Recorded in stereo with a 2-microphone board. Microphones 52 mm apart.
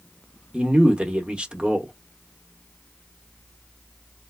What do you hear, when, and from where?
0.5 s a man speaking: 20° right (ahead or behind), 0.7 m